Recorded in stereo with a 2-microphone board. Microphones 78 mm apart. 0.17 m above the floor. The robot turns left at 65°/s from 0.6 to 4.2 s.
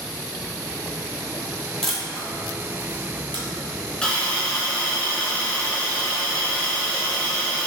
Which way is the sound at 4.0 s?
10° left (ahead or behind).